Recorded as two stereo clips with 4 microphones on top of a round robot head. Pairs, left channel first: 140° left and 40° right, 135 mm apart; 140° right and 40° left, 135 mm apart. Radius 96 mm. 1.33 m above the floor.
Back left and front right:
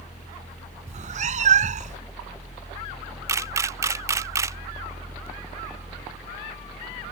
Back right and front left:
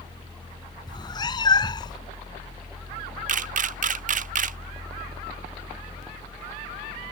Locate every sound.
0.9 s a cat meowing: 75° right
3.3 s a camera shutter: 25° left